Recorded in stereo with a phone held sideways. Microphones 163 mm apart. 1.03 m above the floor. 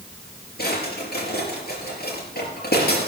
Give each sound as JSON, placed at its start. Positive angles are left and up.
{"t": 0.6, "sound": "a drawer", "side_deg": 80, "distance_m": 4.5}